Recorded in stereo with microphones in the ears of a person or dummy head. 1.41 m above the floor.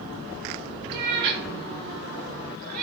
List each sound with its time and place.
0.9 s a cat meowing: 65° right (ahead or behind), 7 m; by 2.8 s 50° right (ahead or behind), 9.5 m